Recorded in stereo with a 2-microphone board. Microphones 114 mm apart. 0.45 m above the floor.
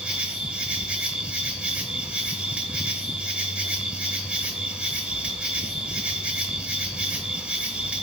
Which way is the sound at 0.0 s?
10° right (ahead or behind).